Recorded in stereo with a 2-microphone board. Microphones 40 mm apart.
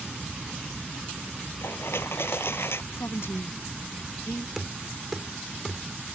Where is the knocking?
5° right (ahead or behind).